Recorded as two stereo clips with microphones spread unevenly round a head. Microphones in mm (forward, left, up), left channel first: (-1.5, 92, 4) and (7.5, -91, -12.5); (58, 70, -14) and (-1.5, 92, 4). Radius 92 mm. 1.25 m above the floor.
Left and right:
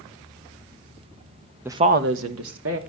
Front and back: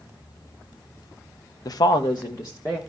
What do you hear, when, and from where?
1.6 s a woman speaking: 10° right, 0.7 m; by 2.8 s 100° right, 1.5 m